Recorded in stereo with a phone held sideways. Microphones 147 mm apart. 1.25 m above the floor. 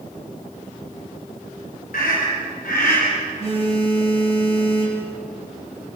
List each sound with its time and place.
1.9 s a scream: 80° left, 5 m; by 3.0 s 85° left, 4 m
3.4 s a phone buzzing: 45° left (ahead or behind), 7 m